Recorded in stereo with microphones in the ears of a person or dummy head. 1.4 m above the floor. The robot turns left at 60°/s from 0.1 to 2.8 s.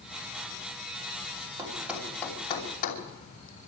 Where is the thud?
20° right (ahead or behind), 3 m; by 3.0 s 45° left (ahead or behind), 3 m.